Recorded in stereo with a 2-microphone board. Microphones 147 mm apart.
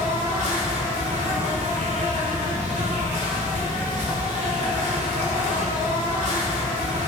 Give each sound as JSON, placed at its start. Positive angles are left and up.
{"t": 0.0, "sound": "an insect", "side_deg": -60, "distance_m": 1.0}